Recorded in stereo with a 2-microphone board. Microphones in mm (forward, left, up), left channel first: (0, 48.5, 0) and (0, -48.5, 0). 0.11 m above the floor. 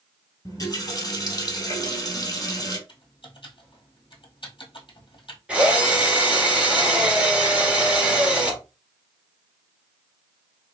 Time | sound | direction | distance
0.5 | a running tap | 40° left (ahead or behind) | 1.9 m
2.9 | typing on a keyboard | 60° left (ahead or behind) | 1.5 m
5.5 | a drill | 10° right (ahead or behind) | 1.6 m